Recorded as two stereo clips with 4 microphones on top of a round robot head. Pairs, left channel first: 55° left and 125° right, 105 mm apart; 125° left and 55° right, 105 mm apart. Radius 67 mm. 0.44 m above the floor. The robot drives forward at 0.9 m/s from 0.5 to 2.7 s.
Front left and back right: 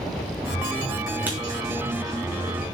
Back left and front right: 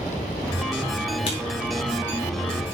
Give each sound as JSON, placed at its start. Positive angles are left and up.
{"t": 1.3, "sound": "writing", "azimuth_deg": 160, "distance_m": 4.5}